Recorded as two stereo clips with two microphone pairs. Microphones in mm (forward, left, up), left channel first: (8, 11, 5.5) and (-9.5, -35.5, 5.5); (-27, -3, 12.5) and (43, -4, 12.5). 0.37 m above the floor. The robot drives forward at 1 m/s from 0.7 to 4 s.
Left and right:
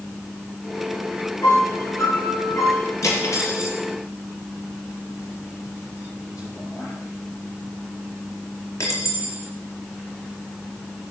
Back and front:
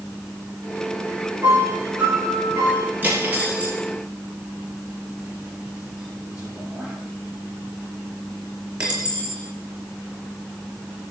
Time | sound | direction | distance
1.4 | a piano | 50° left | 9.5 m
3.0 | cutlery clinking | 65° left | 4.5 m